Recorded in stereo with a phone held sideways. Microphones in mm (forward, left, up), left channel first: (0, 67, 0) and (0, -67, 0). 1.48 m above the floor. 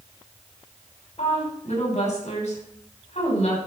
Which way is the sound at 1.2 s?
60° left (ahead or behind).